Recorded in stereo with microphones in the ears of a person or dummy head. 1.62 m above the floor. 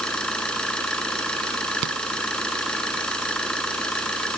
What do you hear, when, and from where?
0.0 s an engine running: 5° left (ahead or behind)
1.8 s a rattle: 65° right (ahead or behind)